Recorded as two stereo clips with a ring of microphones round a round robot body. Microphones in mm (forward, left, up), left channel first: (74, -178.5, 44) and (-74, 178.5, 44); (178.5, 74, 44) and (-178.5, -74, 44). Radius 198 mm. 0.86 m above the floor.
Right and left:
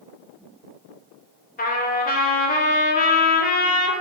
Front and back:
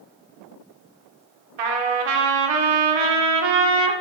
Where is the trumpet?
135° right, 1.6 m.